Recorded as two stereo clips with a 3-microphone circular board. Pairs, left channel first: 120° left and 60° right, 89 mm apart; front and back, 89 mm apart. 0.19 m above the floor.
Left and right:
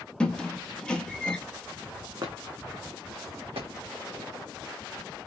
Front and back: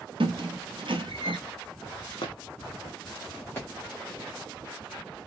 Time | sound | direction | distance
0.2 | a squeak | 160° right | 0.8 m
2.2 | footsteps | 20° right | 1.1 m